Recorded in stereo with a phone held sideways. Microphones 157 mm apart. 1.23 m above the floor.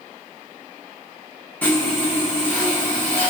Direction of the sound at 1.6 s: 10° left (ahead or behind).